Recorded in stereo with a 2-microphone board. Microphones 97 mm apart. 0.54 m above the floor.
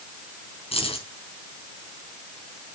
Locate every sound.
0.7 s keys jangling: 85° left, 4.5 m